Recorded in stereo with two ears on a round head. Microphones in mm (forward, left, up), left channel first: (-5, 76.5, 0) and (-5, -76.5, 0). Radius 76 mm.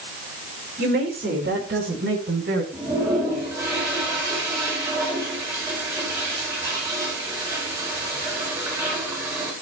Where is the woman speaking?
65° right (ahead or behind), 5 m; by 2.6 s 80° right, 5 m.